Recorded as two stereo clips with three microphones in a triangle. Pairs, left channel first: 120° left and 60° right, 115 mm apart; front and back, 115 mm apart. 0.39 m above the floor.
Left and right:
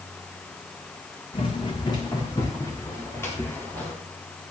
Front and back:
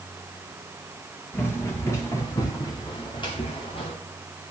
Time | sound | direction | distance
1.3 | running footsteps | 75° left | 3 m